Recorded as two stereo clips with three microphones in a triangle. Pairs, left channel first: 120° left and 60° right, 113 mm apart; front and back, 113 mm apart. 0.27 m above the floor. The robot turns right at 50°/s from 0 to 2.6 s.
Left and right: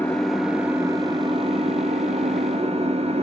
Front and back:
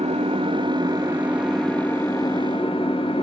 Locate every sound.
0.0 s an engine running: 165° right, 1.0 m; by 3.2 s 35° right, 1.0 m